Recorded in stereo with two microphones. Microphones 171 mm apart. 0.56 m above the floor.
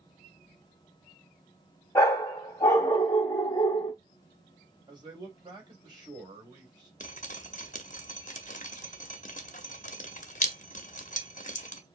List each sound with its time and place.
1.9 s a dog barking: 20° left (ahead or behind), 1.5 m
4.9 s a man speaking: 25° right (ahead or behind), 2.5 m
7.0 s dripping: 45° left (ahead or behind), 0.7 m